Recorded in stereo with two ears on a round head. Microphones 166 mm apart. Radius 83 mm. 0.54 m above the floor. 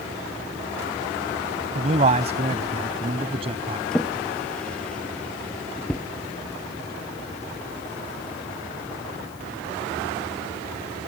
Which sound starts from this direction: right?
A man speaking, at 1.8 s.